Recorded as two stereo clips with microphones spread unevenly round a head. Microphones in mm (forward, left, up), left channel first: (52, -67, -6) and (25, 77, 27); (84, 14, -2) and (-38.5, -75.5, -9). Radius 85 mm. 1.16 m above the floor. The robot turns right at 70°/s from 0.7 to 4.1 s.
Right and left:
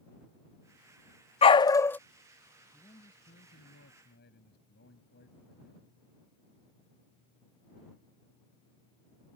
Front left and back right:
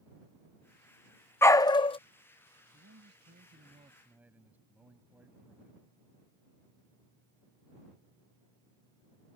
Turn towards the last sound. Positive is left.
turn(degrees=-65)